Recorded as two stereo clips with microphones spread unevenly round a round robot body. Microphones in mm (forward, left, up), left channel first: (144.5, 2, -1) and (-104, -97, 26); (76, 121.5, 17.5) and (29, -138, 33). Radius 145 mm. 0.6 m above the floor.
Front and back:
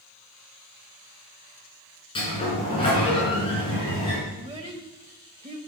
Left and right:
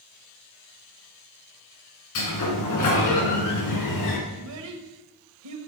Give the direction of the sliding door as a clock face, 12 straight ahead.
9 o'clock.